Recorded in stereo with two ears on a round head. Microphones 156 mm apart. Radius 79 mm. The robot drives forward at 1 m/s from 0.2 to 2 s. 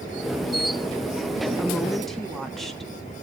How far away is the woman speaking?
About 1.1 m.